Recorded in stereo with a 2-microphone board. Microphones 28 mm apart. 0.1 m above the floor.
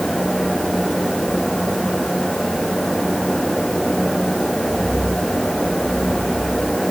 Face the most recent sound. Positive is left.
No sound to turn to.